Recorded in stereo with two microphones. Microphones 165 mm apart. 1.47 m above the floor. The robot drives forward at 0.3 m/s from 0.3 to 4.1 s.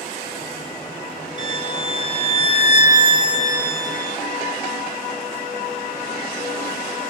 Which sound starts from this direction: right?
A violin, at 1.4 s.